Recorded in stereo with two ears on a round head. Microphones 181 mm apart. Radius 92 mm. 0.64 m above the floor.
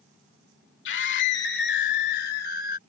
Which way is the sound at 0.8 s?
65° left (ahead or behind).